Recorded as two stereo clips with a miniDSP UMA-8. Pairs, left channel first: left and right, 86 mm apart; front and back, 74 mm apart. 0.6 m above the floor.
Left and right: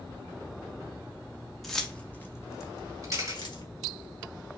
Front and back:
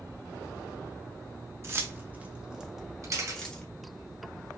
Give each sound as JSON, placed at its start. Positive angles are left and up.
{"t": 1.6, "sound": "keys jangling", "azimuth_deg": 175, "distance_m": 0.7}
{"t": 3.0, "sound": "a camera shutter", "azimuth_deg": -140, "distance_m": 2.0}